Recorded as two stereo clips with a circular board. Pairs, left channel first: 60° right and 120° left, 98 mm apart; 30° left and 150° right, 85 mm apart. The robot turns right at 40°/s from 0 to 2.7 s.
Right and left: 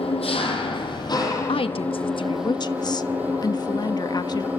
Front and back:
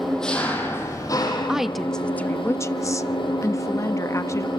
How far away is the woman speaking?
About 1.1 m.